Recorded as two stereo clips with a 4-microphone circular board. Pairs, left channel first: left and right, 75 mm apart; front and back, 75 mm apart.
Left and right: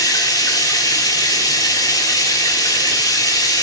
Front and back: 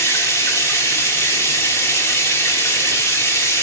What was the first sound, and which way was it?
Running water, 55° left.